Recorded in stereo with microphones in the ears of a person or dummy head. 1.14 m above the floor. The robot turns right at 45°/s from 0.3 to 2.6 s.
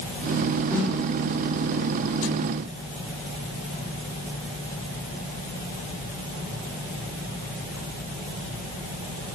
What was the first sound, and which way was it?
A snare drum, 15° right (ahead or behind).